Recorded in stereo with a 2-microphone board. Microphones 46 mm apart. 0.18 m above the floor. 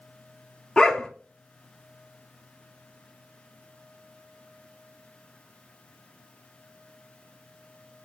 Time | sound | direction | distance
0.8 | a dog barking | 15° left (ahead or behind) | 0.5 m